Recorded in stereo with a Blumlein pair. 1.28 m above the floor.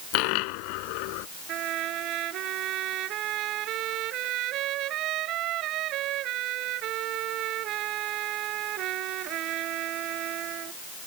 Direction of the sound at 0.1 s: 45° left.